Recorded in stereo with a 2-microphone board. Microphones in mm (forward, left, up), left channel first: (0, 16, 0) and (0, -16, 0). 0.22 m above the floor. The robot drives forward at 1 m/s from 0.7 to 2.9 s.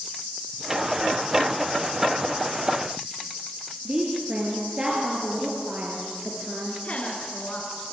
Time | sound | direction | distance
3.9 | a woman speaking | 30° right (ahead or behind) | 4 m
6.8 | a woman speaking | 45° left (ahead or behind) | 3.5 m